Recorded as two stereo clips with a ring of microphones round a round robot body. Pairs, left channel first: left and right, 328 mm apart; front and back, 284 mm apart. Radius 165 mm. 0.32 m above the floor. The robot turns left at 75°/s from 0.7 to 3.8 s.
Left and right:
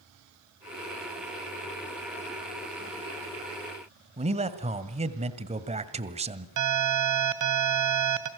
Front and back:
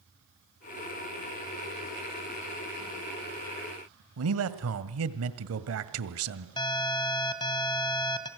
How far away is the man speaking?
About 1.9 m.